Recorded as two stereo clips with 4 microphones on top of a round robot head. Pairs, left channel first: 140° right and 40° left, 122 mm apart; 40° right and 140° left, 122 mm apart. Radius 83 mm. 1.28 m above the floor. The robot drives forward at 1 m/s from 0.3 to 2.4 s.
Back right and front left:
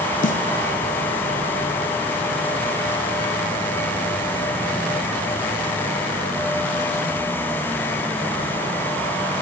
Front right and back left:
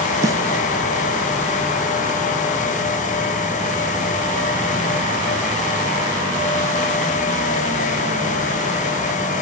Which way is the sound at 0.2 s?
155° right.